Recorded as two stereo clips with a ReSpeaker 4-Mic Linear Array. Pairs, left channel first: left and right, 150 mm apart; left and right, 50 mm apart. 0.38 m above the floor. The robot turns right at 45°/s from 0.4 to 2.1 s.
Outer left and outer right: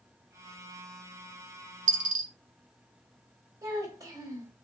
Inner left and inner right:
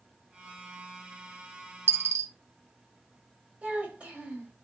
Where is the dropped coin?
60° right (ahead or behind), 0.7 m; by 2.3 s 70° right (ahead or behind), 0.7 m.